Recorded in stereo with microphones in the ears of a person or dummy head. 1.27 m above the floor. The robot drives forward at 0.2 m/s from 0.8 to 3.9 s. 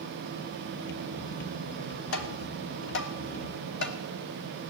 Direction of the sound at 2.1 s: 70° left (ahead or behind).